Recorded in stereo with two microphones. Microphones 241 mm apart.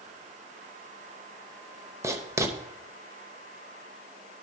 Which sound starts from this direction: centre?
Writing, at 2.0 s.